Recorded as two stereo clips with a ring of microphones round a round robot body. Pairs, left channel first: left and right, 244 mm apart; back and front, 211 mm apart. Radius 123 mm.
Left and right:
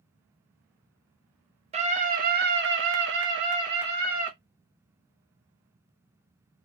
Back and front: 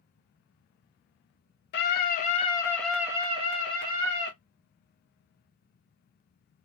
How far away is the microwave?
I don't hear a microwave.